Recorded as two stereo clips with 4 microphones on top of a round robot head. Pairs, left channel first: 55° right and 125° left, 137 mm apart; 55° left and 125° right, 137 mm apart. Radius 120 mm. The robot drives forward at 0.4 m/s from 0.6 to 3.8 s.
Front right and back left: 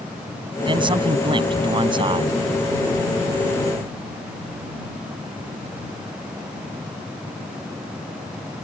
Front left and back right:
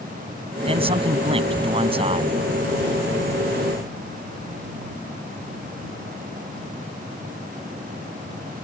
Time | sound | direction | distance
0.6 | a man speaking | 175° right | ?